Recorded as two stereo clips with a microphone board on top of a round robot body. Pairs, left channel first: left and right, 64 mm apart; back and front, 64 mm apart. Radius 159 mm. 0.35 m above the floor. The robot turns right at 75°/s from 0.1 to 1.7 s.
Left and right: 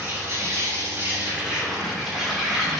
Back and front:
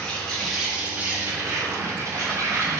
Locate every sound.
0.0 s an insect: 120° right, 3 m; by 2.8 s straight ahead, 3 m